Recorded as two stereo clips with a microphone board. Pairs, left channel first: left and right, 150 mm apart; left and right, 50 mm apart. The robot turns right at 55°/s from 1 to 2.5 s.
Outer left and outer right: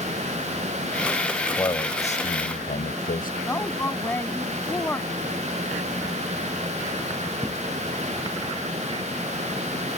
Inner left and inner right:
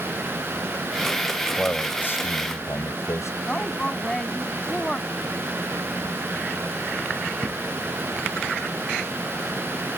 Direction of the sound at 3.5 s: 15° left (ahead or behind).